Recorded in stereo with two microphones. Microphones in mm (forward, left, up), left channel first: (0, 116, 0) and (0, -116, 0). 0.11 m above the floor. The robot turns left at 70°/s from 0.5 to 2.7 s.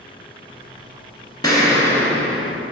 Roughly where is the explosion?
Centre.